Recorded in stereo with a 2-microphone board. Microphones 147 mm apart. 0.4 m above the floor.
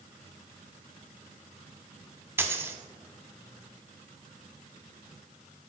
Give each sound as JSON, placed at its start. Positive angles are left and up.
{"t": 2.4, "sound": "a dropped coin", "side_deg": -15, "distance_m": 0.6}